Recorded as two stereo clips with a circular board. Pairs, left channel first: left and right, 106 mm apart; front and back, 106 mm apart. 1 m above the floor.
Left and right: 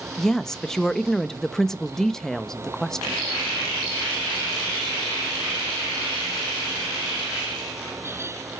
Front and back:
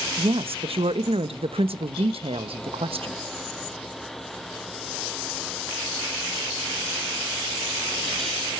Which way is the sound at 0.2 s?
175° left.